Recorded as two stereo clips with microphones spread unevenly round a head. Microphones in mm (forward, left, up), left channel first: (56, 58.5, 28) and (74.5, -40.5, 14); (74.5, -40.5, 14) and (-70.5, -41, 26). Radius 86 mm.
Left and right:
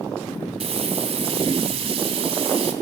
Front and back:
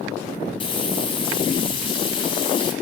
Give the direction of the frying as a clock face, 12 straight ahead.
2 o'clock.